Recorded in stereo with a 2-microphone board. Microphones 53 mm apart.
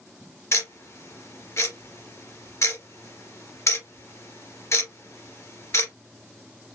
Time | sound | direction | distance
0.5 | ticking | 65° left (ahead or behind) | 2.5 m